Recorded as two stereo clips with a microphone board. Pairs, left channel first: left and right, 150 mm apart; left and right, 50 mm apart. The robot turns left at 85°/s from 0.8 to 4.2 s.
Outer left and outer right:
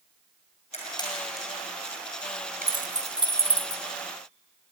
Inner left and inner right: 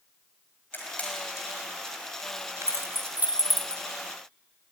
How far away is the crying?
I don't hear crying.